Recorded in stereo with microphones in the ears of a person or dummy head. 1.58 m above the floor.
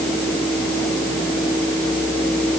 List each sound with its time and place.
Only background noise.